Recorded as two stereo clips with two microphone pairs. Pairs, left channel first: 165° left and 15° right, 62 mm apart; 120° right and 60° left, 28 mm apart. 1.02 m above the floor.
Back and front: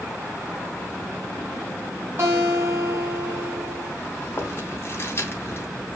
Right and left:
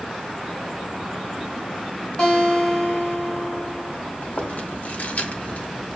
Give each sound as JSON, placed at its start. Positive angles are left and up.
{"t": 2.2, "sound": "a guitar", "azimuth_deg": -60, "distance_m": 3.5}
{"t": 4.2, "sound": "chewing", "azimuth_deg": -145, "distance_m": 2.5}